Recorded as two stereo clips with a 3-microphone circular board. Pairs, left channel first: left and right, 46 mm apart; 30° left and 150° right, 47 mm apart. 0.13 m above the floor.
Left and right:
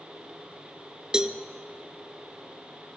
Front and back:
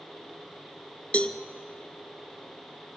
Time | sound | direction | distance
1.1 | a cowbell | 20° right | 0.9 m